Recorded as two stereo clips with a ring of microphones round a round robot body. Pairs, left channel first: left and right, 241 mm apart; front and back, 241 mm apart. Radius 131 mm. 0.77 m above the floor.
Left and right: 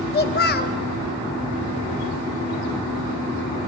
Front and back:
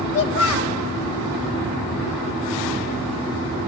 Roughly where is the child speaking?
Ahead left.